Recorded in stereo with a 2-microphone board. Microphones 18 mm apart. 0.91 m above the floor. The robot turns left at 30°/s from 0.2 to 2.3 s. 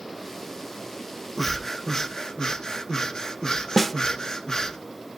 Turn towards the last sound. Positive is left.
turn(degrees=10)  # may be behind; listen again after turning